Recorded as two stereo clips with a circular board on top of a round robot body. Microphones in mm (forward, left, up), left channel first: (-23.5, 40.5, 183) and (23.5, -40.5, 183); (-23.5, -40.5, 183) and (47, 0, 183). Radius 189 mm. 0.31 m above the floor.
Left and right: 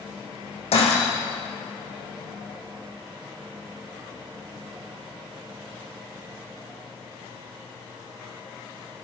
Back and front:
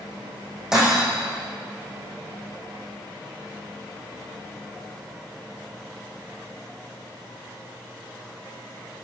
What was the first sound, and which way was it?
Breaking glass, 115° left.